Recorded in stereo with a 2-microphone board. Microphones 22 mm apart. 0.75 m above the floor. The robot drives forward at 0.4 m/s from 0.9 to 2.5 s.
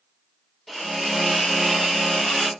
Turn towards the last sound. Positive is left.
turn(degrees=0)  # may be behind; listen again after turning